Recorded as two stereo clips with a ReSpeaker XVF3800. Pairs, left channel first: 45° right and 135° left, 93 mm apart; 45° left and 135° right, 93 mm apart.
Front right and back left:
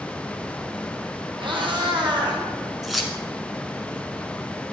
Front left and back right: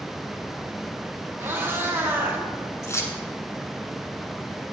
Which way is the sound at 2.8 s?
45° left.